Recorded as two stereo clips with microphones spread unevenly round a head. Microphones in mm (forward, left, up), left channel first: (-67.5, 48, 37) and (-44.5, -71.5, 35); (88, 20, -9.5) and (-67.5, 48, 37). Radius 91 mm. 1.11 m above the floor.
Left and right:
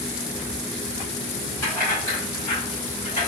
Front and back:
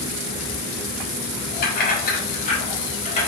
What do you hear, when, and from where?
1.6 s keys jangling: 20° left, 1.5 m; by 3.3 s 45° left, 2 m